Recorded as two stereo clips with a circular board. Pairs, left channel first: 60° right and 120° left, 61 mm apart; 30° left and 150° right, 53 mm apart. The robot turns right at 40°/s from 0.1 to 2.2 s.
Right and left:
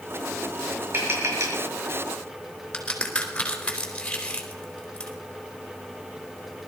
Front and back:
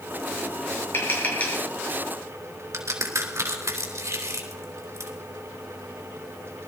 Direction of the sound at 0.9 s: 70° left.